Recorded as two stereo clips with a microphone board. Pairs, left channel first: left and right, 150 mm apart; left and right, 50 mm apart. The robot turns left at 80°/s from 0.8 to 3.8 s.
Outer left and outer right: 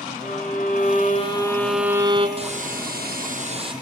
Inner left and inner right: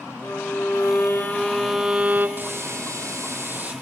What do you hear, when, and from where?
0.2 s a violin: 75° left, 2.5 m; by 2.3 s 45° right, 2.5 m
2.4 s a hiss: 40° right, 4 m; by 3.7 s 150° right, 4 m